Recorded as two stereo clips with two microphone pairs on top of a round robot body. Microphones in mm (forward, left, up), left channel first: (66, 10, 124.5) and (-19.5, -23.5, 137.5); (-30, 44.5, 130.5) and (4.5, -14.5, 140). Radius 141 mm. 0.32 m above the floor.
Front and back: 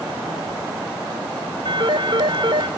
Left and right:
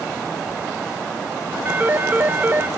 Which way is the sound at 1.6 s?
125° right.